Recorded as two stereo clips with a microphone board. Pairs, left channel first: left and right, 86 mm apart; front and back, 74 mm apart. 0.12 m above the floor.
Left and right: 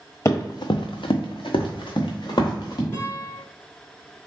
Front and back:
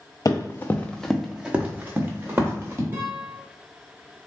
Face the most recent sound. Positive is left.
turn(degrees=145)